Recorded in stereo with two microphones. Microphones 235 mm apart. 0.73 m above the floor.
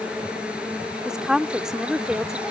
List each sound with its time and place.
0.0 s an insect: 5° right (ahead or behind)
1.1 s a woman speaking: 5° right (ahead or behind)